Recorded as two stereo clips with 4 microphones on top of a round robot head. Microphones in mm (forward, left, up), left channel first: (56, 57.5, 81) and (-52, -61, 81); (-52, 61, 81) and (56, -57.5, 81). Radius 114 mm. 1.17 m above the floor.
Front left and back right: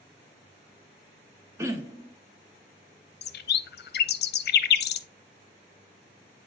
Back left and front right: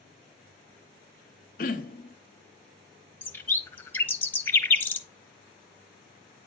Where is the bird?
55° left, 0.8 m.